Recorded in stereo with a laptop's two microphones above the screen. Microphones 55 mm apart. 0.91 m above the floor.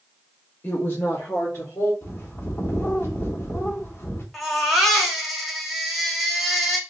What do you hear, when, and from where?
0.6 s a woman speaking: 35° left (ahead or behind), 0.7 m; by 1.9 s 50° left (ahead or behind), 2.0 m
2.0 s a bird: 45° left (ahead or behind), 2 m
4.3 s a baby crying: 5° right (ahead or behind), 1.2 m